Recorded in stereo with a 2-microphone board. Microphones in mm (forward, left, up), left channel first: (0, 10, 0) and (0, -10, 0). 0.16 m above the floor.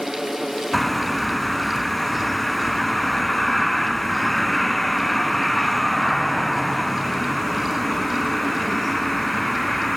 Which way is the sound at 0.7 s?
10° left (ahead or behind).